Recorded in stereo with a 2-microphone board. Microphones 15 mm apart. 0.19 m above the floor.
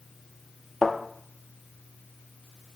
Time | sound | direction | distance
0.8 | a thud | 20° left (ahead or behind) | 1.5 m